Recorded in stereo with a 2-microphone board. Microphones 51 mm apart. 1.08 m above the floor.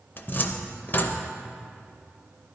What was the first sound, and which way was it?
A cupboard door, 40° left (ahead or behind).